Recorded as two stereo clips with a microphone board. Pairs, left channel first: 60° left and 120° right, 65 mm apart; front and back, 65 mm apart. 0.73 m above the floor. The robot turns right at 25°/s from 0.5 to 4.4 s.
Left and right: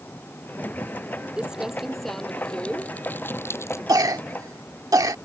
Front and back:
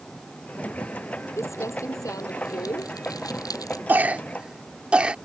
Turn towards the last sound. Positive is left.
turn(degrees=-110)